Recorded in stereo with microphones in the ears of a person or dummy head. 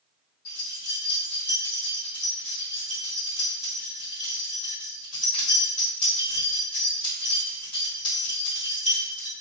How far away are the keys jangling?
About 1.7 m.